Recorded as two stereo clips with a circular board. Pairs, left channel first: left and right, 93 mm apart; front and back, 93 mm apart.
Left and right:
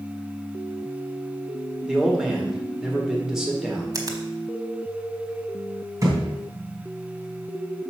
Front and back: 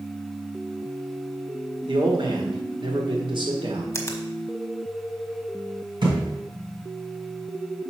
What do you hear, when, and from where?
1.9 s a man speaking: 175° right, 1.8 m
3.9 s a finger snap: 55° right, 1.2 m
6.0 s a thud: 145° right, 2.5 m